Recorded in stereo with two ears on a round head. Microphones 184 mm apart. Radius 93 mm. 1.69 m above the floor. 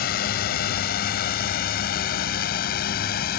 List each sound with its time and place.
0.0 s a drone: 45° left (ahead or behind)